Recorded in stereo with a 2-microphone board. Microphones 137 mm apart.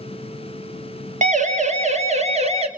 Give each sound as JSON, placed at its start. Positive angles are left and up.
{"t": 1.2, "sound": "a siren", "side_deg": -60, "distance_m": 3.5}